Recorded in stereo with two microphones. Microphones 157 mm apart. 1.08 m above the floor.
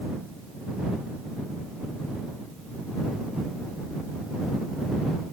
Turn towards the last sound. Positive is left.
No sound to turn to.